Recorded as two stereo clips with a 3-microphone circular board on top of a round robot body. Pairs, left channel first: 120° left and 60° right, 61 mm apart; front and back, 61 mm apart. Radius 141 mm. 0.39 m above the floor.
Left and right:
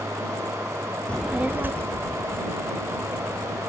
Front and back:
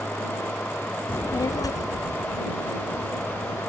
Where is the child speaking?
50° left; by 3.6 s 25° right.